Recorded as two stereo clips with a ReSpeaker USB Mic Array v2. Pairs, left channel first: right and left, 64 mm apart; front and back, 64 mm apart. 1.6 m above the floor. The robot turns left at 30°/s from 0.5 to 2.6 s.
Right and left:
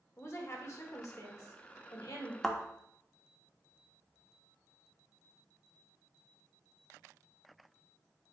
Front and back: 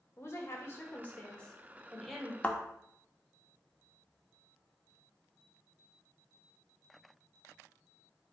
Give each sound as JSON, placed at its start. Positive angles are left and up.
{"t": 0.2, "sound": "a woman speaking", "azimuth_deg": -45, "distance_m": 1.7}
{"t": 2.4, "sound": "a thud", "azimuth_deg": -10, "distance_m": 1.0}